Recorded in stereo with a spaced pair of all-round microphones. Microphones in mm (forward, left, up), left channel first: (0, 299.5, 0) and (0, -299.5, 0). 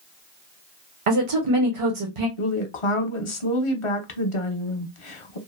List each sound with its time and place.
1.1 s a woman speaking: 60° right (ahead or behind), 0.8 m
2.4 s a woman speaking: 55° left (ahead or behind), 0.7 m